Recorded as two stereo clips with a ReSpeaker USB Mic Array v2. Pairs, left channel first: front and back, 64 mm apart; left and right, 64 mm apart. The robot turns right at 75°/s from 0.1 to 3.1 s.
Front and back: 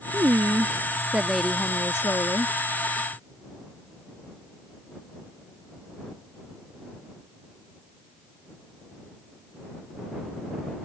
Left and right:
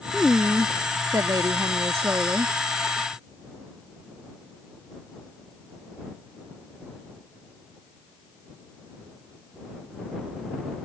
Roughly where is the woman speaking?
Behind.